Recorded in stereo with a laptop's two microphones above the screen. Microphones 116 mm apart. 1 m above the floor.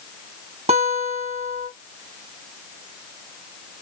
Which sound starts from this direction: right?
A guitar, at 0.7 s.